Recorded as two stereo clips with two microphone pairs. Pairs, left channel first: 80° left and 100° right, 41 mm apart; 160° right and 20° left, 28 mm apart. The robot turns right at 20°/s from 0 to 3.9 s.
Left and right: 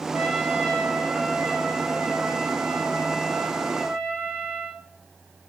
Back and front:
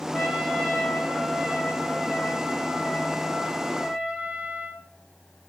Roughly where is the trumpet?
Right.